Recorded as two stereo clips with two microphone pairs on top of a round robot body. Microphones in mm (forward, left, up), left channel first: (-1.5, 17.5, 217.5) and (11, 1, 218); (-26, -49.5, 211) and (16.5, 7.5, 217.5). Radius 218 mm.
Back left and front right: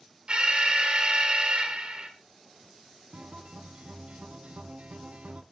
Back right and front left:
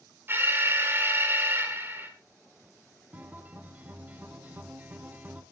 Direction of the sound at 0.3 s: 10° right.